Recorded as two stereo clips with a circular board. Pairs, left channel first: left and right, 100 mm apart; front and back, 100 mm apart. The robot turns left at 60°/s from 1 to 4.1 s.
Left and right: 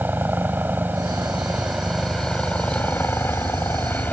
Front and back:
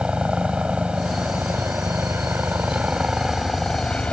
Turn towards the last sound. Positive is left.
turn(degrees=55)